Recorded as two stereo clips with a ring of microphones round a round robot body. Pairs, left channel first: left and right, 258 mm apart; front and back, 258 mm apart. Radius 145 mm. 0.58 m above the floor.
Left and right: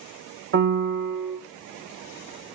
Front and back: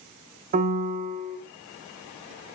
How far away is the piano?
About 0.7 m.